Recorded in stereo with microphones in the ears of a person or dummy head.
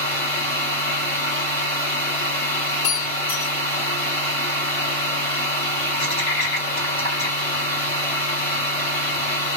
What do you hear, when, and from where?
0.0 s a machine running: 20° left (ahead or behind), 2.5 m
2.8 s breaking glass: 65° left (ahead or behind), 1.0 m